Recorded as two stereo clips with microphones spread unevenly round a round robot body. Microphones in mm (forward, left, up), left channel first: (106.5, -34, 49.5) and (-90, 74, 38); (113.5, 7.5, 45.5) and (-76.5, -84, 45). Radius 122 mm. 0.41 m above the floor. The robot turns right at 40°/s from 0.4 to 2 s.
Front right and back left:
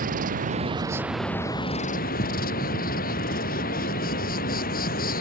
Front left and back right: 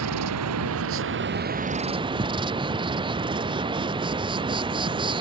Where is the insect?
150° right; by 5.2 s 85° right.